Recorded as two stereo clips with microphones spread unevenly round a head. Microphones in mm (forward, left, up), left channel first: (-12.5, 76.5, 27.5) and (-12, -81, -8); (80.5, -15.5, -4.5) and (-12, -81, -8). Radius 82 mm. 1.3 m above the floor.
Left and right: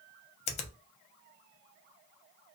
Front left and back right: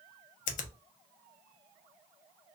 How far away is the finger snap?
About 0.5 m.